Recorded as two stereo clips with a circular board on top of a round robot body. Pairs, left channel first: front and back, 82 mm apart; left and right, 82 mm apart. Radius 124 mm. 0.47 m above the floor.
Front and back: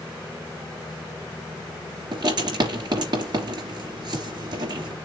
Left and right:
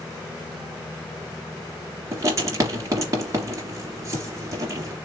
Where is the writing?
145° right, 3 m.